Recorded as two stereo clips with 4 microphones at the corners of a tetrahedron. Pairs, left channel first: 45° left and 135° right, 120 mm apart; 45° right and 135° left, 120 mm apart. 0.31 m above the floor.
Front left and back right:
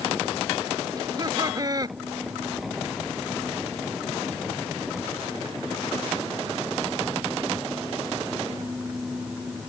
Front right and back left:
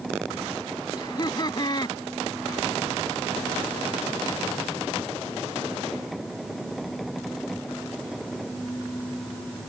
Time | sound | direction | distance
1.0 | laughter | 85° right | ?